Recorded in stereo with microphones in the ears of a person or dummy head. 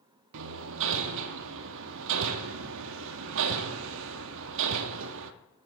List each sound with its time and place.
0.3 s hammering: 65° right (ahead or behind), 0.5 m